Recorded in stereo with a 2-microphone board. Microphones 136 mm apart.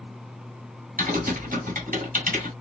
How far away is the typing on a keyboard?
About 1.5 m.